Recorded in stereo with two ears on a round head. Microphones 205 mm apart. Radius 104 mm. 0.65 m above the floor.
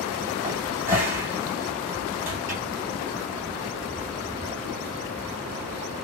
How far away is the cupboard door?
About 1.6 m.